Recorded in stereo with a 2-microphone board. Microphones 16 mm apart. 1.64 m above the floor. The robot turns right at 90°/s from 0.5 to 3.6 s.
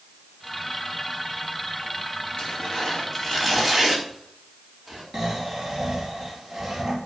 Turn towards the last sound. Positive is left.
turn(degrees=-20)  # may be behind; listen again after turning